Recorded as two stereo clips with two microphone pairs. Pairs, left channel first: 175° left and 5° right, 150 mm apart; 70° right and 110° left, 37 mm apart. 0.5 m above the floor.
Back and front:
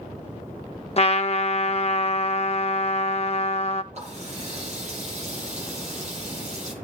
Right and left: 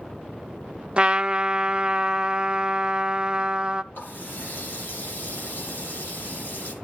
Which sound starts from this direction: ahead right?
A running tap, at 3.9 s.